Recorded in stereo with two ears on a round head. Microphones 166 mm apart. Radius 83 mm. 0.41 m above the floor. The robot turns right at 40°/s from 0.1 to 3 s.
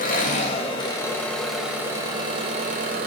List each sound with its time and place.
0.0 s an engine running: 125° left, 1.1 m; by 3.1 s 120° right, 1.1 m